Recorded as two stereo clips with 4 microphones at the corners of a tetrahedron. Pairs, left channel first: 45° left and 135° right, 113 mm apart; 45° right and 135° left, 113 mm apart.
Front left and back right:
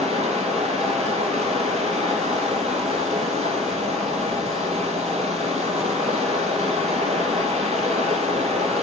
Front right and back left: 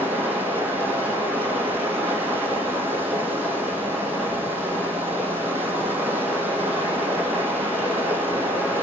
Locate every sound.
0.0 s running water: 150° right, 2 m